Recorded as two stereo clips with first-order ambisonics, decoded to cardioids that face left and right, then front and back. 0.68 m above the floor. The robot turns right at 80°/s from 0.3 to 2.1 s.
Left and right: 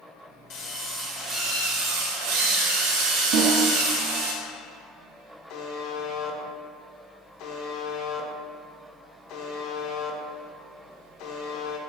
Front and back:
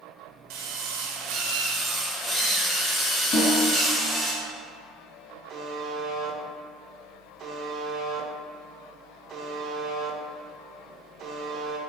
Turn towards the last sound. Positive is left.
turn(degrees=120)